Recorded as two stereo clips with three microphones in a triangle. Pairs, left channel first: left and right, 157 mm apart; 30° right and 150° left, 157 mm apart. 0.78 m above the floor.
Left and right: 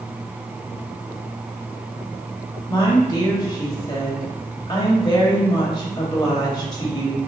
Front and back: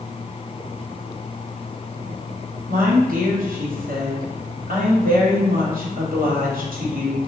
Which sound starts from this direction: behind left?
A woman speaking, at 2.7 s.